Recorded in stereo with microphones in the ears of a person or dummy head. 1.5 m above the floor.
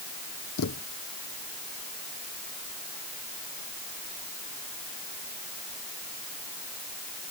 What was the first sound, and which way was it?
A thud, 65° left (ahead or behind).